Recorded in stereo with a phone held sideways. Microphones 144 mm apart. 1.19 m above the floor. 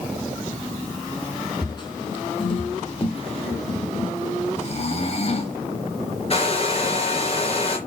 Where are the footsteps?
35° left (ahead or behind), 3 m; by 4.1 s 45° left (ahead or behind), 1.9 m.